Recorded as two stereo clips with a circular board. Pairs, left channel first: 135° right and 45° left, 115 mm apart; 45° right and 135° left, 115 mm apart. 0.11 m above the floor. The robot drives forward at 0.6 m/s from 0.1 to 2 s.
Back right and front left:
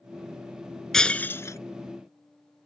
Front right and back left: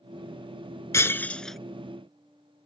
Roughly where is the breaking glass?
Ahead right.